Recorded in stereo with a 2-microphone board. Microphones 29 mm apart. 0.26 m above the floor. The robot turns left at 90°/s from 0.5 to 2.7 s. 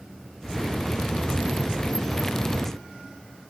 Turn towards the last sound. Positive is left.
No sound to turn to.